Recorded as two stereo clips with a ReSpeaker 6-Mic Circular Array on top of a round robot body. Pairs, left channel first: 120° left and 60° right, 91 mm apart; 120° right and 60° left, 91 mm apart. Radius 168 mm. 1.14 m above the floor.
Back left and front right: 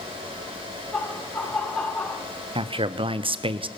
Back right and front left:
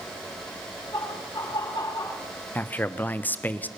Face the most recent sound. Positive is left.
turn(degrees=-50)